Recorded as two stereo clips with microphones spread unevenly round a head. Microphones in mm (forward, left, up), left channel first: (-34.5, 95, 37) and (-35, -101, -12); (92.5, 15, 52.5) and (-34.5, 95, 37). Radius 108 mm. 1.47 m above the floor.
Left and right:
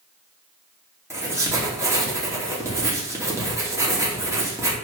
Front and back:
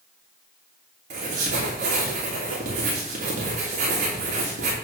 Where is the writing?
165° right, 3 m.